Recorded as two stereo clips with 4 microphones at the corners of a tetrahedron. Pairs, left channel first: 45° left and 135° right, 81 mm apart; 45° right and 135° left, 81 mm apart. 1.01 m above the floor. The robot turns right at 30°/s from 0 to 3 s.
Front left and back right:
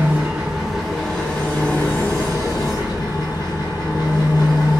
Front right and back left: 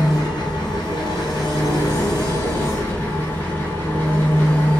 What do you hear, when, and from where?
0.0 s an engine running: 70° right, 1.7 m; by 4.8 s 20° left, 1.7 m